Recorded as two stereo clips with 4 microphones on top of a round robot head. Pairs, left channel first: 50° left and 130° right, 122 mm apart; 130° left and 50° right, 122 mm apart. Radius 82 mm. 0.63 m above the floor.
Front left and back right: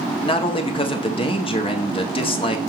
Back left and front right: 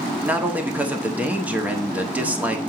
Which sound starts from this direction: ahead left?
A man speaking, at 0.2 s.